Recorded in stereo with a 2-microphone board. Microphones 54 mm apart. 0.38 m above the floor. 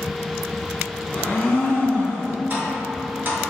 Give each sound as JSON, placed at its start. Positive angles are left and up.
{"t": 1.1, "sound": "a blender", "side_deg": 30, "distance_m": 1.0}
{"t": 2.5, "sound": "tapping", "side_deg": -40, "distance_m": 1.2}